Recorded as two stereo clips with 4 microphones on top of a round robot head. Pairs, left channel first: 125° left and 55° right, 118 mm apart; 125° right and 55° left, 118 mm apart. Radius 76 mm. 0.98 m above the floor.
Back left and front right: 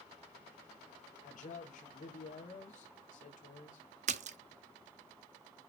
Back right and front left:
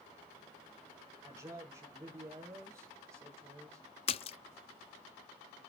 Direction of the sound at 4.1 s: 85° right.